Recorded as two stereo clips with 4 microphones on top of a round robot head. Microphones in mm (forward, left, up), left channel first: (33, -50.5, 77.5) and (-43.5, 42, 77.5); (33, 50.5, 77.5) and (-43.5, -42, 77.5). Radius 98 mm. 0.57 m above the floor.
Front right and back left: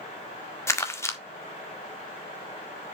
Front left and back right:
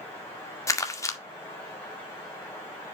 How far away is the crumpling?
About 1.5 m.